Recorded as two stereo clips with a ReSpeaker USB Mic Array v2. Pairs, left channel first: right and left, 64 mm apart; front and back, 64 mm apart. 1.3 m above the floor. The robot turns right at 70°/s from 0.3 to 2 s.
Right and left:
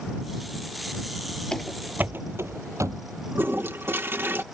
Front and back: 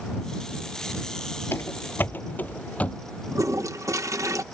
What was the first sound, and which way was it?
Running footsteps, 20° right.